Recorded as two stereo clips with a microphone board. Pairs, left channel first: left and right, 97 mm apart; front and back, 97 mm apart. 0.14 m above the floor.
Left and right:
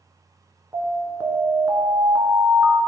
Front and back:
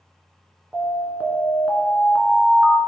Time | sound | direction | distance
0.7 | an alarm | 120° right | 1.5 m